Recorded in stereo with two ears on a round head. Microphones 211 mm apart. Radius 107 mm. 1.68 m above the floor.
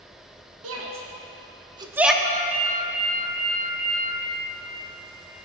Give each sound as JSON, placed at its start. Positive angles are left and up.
{"t": 0.6, "sound": "a shout", "side_deg": -70, "distance_m": 1.2}
{"t": 2.2, "sound": "a ringtone", "side_deg": -35, "distance_m": 1.7}